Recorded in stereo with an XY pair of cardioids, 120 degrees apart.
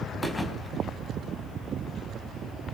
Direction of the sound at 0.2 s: 15° left.